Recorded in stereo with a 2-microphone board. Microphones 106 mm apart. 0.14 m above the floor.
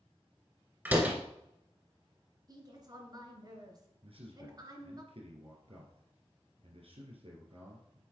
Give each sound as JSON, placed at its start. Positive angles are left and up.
{"t": 0.8, "sound": "a door slam", "side_deg": -15, "distance_m": 1.5}
{"t": 2.5, "sound": "a woman speaking", "side_deg": -40, "distance_m": 2.0}
{"t": 4.0, "sound": "a man speaking", "side_deg": -65, "distance_m": 3.0}